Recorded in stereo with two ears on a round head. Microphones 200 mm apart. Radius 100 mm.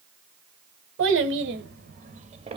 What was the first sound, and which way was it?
A child speaking, 60° right (ahead or behind).